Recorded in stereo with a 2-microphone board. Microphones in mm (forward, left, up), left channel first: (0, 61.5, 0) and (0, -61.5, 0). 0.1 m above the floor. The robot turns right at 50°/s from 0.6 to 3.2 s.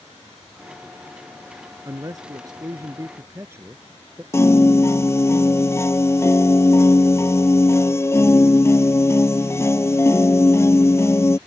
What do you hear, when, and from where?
1.9 s a man speaking: 110° right; by 4.2 s 40° right
4.3 s a piano: 20° left (ahead or behind)